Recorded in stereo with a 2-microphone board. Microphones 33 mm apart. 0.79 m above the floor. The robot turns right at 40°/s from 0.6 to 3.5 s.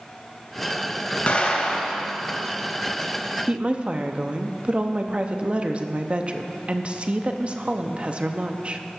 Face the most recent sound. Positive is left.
turn(degrees=-35)  # may be behind; listen again after turning